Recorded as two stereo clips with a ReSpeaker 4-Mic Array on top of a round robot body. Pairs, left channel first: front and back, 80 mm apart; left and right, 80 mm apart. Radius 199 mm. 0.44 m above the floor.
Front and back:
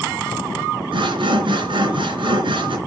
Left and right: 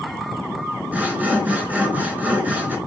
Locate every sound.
0.9 s sawing: 160° right, 3 m